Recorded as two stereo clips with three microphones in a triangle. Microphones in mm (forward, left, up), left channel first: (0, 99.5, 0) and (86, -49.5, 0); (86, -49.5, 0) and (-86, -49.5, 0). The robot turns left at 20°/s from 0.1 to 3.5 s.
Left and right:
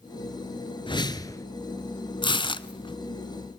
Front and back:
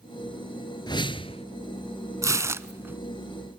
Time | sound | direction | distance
0.9 | a whoosh | 60° left | 1.1 m
2.2 | tearing paper | 130° left | 0.8 m